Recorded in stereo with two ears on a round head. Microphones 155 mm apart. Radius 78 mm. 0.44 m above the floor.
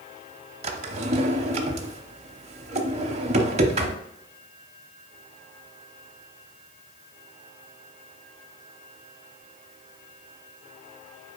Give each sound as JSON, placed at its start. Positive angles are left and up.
{"t": 0.6, "sound": "a drawer", "side_deg": -40, "distance_m": 0.8}